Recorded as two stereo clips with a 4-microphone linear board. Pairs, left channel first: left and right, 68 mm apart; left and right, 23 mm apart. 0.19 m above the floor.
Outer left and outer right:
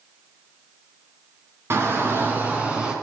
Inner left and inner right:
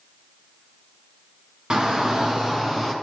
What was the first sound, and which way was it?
A shout, 40° right (ahead or behind).